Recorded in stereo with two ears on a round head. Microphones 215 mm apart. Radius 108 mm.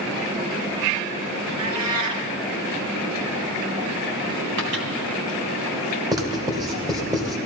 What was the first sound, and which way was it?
A cat meowing, 85° right.